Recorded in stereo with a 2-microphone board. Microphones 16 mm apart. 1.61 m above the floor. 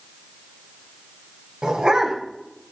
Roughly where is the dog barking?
Right.